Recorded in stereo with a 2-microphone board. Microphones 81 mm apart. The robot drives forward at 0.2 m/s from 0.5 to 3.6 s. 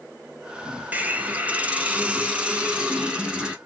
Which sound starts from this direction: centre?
A hiss, at 0.9 s.